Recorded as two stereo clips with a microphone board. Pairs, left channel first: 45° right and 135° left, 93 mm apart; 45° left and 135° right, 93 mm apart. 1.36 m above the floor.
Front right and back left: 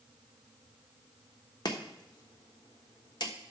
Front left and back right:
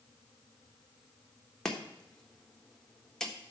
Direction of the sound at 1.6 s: 35° right.